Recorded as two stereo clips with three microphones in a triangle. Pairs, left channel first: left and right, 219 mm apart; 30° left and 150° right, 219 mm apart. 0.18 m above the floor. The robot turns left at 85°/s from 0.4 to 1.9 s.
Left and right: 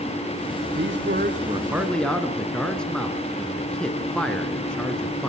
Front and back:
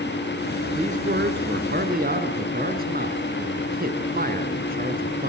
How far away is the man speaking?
About 2.5 m.